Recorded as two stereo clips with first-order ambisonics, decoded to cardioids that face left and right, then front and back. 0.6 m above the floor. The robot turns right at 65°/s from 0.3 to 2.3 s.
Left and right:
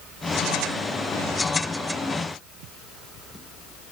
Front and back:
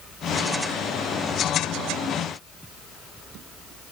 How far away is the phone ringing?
No phone ringing in this recording.